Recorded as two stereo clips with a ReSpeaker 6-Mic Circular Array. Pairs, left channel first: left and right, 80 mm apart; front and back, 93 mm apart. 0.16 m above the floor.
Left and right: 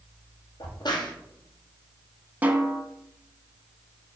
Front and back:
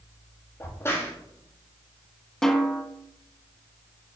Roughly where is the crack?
Ahead left.